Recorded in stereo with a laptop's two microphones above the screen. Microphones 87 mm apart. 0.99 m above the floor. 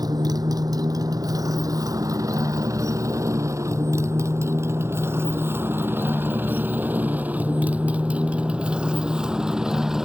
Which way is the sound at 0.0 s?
50° right (ahead or behind).